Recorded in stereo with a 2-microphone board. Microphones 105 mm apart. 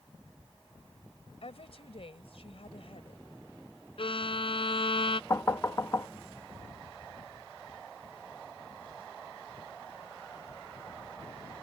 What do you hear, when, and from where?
1.4 s a woman speaking: 65° left (ahead or behind)
4.0 s a violin: 60° left (ahead or behind)
5.3 s knocking: 30° left (ahead or behind)